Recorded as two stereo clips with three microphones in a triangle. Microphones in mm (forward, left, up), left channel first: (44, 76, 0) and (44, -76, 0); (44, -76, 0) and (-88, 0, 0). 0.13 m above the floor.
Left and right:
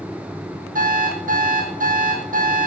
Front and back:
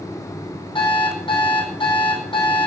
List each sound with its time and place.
0.8 s an alarm clock: 85° right, 3 m